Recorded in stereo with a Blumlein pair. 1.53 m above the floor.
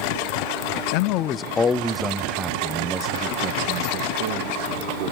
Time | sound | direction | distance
0.9 | a man speaking | 45° left | 0.8 m